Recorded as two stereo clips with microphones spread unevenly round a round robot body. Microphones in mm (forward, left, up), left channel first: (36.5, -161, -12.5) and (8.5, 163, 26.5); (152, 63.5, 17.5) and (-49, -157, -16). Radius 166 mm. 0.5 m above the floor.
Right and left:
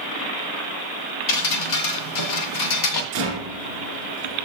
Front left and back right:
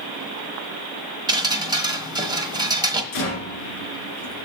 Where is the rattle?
55° left, 1.9 m.